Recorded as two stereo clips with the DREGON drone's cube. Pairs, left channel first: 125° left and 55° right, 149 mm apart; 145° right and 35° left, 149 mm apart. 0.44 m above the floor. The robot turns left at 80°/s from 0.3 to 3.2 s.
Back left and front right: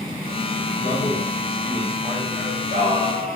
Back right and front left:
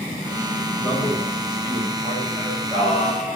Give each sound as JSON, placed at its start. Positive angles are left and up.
{"t": 0.8, "sound": "a man speaking", "azimuth_deg": 100, "distance_m": 3.5}
{"t": 2.4, "sound": "singing", "azimuth_deg": -60, "distance_m": 6.0}